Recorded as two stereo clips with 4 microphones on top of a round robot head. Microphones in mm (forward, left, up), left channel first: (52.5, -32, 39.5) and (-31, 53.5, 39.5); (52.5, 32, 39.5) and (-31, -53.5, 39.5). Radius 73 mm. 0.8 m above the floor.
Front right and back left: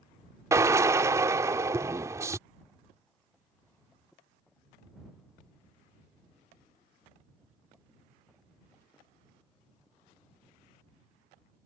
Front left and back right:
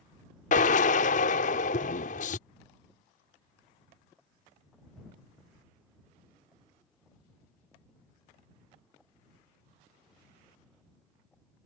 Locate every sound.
0.5 s a drill: 65° left